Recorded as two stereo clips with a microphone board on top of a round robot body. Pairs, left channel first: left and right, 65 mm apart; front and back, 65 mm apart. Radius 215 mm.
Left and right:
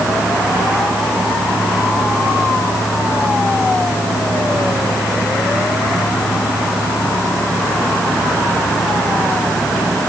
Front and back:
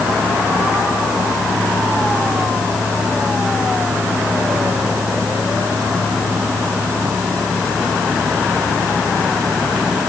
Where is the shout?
I don't hear a shout.